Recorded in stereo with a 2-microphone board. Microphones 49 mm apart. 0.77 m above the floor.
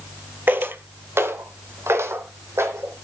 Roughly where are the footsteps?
Right.